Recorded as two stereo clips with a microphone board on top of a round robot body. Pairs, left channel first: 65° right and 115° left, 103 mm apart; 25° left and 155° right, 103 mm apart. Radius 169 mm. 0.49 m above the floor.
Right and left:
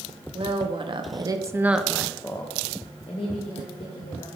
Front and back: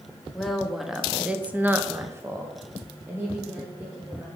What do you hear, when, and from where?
0.3 s a woman speaking: 115° left, 1.3 m; by 4.3 s 85° right, 2 m